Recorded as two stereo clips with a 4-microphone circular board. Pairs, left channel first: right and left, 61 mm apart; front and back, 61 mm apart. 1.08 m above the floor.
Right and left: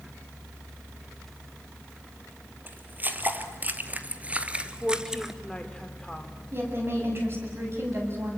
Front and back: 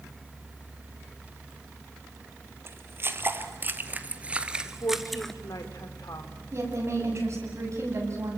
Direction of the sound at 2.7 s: 145° left.